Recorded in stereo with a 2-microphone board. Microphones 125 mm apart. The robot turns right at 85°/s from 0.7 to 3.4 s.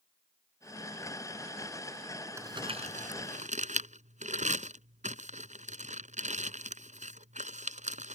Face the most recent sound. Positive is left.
turn(degrees=-70)  # may be behind; listen again after turning